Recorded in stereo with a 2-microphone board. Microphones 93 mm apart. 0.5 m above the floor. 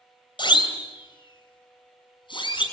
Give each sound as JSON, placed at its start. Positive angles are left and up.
{"t": 0.4, "sound": "a siren", "side_deg": 60, "distance_m": 3.0}